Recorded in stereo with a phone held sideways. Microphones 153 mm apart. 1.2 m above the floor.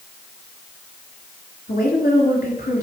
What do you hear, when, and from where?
1.7 s a woman speaking: 80° left, 3.5 m